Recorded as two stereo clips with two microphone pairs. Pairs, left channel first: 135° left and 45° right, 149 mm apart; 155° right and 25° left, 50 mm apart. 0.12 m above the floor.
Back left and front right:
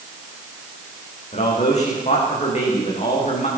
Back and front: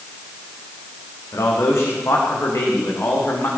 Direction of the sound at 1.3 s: 175° left.